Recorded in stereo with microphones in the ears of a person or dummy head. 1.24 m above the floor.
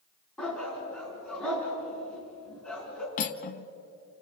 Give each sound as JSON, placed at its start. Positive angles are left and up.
{"t": 0.4, "sound": "a dog barking", "side_deg": 5, "distance_m": 4.5}
{"t": 3.2, "sound": "cutlery clinking", "side_deg": 40, "distance_m": 0.9}